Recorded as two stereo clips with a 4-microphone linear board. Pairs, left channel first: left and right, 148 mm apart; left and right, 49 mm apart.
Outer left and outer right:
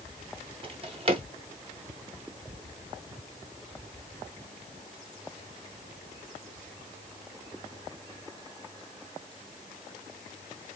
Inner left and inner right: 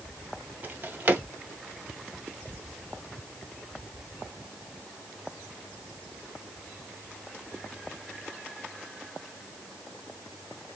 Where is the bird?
I don't hear a bird.